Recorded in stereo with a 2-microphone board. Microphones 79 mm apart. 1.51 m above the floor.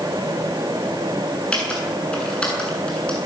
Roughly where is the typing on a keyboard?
Centre.